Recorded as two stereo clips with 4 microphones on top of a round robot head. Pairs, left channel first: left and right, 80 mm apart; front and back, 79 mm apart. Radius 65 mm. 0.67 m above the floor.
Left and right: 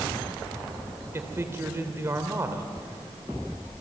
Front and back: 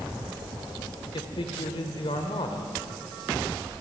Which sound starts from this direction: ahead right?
A man speaking, at 1.1 s.